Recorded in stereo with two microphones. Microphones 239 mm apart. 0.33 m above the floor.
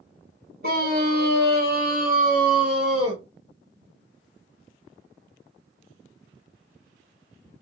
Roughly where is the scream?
Right.